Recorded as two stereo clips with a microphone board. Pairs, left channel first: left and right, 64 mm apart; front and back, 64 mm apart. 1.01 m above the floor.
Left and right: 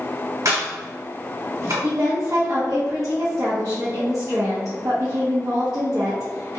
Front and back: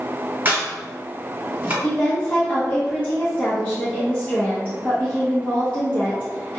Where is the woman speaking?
70° right, 0.9 m.